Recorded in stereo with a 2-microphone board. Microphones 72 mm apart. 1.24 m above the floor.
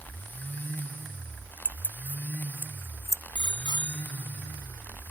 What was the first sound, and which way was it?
Keys jangling, 15° right (ahead or behind).